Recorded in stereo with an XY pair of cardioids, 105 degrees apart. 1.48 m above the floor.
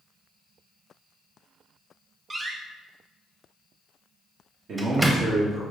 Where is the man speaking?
65° right, 1.5 m.